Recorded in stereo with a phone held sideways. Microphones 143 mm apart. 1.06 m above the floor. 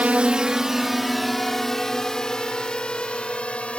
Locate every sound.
0.0 s a drone: 10° right (ahead or behind); by 3.8 s 10° left (ahead or behind)